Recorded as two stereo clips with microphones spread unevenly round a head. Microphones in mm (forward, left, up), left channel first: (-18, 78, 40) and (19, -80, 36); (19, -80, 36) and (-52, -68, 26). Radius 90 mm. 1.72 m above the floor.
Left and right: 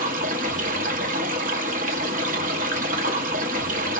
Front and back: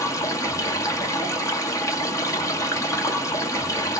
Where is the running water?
35° right, 0.9 m.